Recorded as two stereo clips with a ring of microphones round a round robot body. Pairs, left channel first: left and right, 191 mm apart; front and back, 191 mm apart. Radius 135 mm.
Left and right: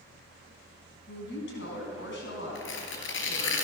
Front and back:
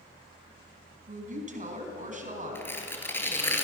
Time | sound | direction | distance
1.1 | a woman speaking | 135° left | 4 m
2.5 | tearing paper | 80° left | 3.5 m